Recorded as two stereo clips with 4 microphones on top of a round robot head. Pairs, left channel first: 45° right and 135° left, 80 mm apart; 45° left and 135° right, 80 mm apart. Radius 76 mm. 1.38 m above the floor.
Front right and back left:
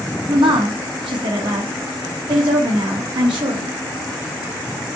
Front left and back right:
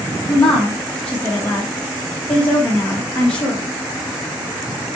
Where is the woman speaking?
120° left, 2 m.